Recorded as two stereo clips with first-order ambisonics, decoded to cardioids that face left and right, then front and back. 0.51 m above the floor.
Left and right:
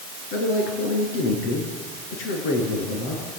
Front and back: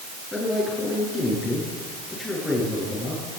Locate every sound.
0.3 s a man speaking: 80° left, 9.5 m